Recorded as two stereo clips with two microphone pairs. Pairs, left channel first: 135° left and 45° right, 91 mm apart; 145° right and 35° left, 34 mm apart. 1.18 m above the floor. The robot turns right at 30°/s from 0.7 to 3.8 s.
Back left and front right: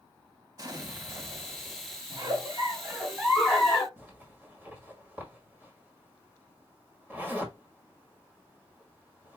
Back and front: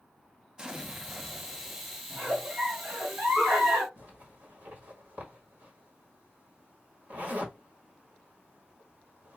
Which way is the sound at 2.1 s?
15° right.